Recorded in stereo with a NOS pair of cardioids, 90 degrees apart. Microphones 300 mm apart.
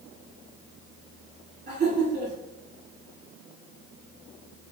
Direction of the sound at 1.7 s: 35° right.